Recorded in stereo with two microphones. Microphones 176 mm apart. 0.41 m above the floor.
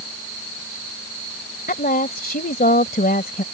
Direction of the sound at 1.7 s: 60° left (ahead or behind).